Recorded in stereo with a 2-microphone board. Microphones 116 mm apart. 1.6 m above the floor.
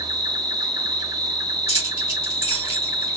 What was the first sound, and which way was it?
An insect, 35° right (ahead or behind).